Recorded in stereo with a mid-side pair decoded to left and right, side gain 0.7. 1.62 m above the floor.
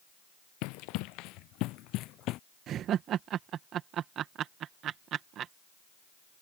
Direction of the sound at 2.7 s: 45° right.